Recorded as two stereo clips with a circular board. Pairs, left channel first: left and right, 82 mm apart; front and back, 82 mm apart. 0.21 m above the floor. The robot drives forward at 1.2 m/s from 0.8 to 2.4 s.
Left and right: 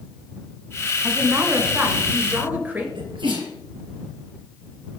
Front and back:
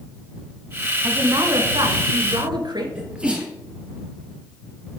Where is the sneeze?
105° right, 3.5 m.